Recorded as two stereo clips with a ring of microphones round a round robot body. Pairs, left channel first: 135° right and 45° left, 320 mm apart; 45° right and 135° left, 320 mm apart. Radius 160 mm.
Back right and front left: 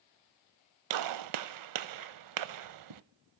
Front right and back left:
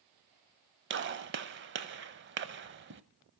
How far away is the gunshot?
About 0.8 m.